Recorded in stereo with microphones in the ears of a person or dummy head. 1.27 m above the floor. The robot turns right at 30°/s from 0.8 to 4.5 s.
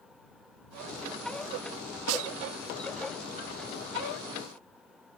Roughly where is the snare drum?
Right.